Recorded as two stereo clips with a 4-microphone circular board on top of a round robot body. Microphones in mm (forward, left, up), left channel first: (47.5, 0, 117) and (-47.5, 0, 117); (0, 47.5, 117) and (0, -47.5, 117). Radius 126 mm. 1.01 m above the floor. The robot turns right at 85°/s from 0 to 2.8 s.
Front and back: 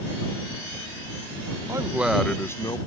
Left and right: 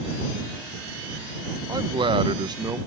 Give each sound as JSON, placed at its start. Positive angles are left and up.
{"t": 1.7, "sound": "a man speaking", "azimuth_deg": -130}